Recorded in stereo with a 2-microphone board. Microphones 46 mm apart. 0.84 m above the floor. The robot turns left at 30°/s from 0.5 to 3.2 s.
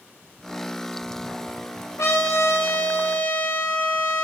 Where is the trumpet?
85° left, 3 m; by 4.2 s 50° left, 3 m.